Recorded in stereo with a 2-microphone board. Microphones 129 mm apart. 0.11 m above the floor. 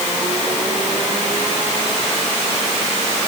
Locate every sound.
Only background noise.